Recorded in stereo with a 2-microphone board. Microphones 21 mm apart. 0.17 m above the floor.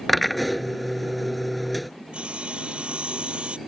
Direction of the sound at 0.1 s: 5° left (ahead or behind).